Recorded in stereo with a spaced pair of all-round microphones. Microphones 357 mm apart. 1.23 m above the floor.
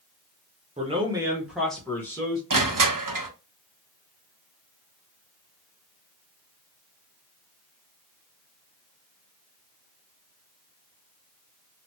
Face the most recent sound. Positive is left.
turn(degrees=-65)  # may be behind; listen again after turning